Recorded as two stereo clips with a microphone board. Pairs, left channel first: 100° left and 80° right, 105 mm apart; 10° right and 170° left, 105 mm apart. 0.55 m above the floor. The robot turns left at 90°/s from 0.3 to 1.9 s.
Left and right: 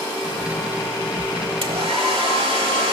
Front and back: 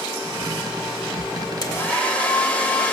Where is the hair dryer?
60° right, 1.2 m; by 2.9 s 85° right, 1.2 m.